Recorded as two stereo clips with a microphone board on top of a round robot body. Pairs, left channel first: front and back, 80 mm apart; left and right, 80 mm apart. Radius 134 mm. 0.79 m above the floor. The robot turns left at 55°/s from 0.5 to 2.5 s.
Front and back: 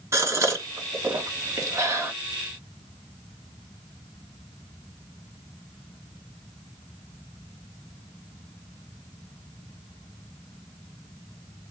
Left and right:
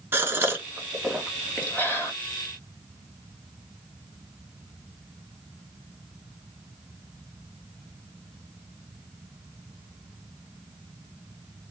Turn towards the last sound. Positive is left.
turn(degrees=110)